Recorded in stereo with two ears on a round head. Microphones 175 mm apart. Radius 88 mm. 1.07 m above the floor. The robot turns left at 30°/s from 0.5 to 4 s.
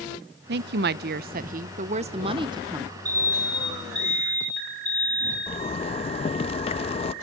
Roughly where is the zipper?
Left.